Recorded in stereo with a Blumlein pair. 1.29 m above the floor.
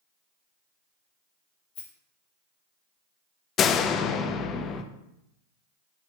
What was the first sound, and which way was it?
A rattle, 45° left.